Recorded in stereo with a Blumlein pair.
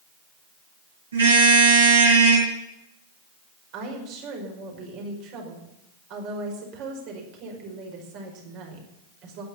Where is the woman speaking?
40° right, 5 m.